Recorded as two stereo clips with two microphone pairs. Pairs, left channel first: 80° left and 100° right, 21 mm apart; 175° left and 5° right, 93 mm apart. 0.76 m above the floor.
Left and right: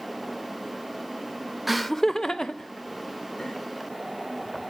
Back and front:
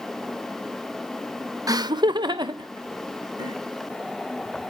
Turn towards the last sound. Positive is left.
turn(degrees=35)